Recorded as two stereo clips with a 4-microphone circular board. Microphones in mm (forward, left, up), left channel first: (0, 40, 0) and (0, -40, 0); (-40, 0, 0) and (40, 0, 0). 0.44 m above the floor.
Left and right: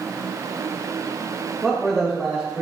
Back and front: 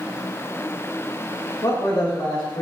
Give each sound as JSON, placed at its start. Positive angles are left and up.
{"t": 1.6, "sound": "a man speaking", "azimuth_deg": 170, "distance_m": 1.5}